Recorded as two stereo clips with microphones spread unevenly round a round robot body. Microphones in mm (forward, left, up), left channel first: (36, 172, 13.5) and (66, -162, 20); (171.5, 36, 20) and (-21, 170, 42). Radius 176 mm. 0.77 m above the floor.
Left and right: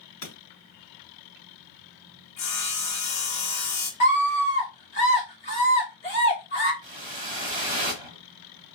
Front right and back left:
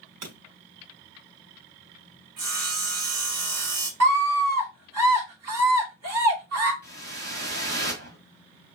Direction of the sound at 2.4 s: 140° left.